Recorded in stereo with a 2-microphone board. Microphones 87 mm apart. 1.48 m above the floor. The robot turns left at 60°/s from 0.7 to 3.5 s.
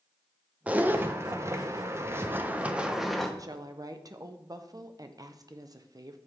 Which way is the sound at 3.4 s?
40° right (ahead or behind).